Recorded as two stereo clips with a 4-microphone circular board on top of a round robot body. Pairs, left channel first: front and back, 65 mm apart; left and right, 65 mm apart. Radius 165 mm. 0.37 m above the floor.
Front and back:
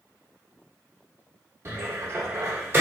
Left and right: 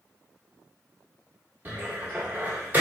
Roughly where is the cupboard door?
Behind right.